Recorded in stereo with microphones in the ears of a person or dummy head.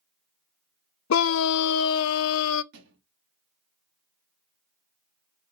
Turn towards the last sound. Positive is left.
turn(degrees=-60)  # may be behind; listen again after turning